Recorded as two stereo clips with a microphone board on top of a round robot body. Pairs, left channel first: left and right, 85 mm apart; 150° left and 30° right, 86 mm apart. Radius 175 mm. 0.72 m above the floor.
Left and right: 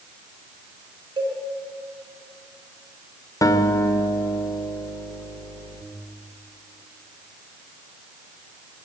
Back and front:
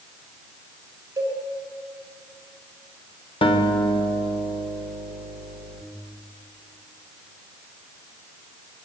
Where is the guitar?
140° left, 2 m.